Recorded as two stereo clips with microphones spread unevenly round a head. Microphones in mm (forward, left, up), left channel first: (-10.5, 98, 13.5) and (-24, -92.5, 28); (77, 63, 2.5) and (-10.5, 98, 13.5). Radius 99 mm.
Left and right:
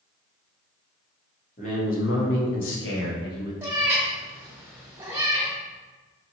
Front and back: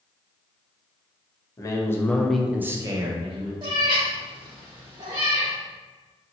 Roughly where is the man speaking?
Ahead left.